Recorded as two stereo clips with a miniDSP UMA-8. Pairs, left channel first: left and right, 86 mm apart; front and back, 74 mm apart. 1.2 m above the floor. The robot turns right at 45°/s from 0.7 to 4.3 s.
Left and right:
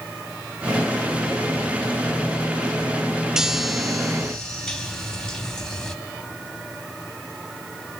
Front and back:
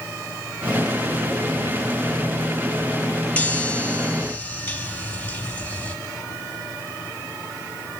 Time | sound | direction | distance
3.4 | a chime | 25° right | 1.1 m